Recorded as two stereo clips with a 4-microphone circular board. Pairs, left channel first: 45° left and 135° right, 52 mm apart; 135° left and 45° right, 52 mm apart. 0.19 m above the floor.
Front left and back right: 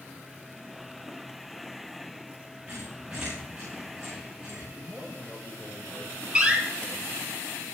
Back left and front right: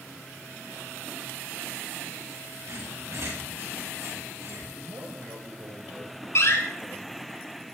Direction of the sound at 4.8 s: 45° right.